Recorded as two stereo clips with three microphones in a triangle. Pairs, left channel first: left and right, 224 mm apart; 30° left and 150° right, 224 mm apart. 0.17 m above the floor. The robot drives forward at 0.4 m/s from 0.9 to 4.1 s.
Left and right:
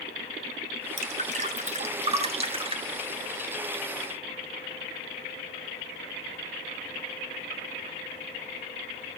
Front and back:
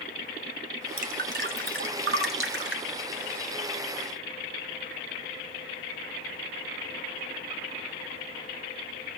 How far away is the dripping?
About 1.1 m.